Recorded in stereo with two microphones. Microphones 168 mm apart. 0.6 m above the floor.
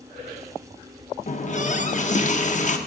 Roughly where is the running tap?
Left.